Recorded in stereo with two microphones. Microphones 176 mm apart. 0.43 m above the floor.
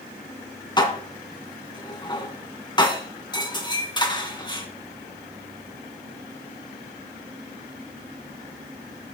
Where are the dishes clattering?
25° left (ahead or behind), 2.5 m.